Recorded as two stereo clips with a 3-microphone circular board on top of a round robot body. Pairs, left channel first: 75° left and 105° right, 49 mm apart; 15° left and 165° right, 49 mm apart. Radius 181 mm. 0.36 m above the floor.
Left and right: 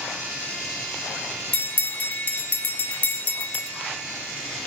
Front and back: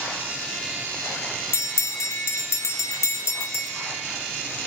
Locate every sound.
1.5 s a bell: 20° left, 0.8 m